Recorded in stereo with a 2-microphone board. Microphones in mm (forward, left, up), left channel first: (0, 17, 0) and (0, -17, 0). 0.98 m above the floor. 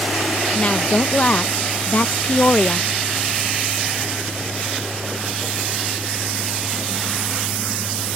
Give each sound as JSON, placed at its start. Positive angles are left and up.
{"t": 0.6, "sound": "a woman speaking", "side_deg": 40}